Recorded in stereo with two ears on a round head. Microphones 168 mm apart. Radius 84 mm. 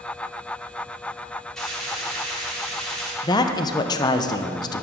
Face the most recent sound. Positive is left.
turn(degrees=20)  # may be behind; listen again after turning